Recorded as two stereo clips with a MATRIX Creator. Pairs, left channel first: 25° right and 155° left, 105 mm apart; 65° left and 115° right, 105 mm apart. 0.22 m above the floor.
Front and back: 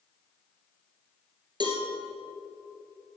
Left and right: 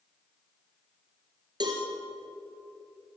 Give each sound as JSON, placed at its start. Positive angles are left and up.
{"t": 1.6, "sound": "a cowbell", "azimuth_deg": -160, "distance_m": 2.5}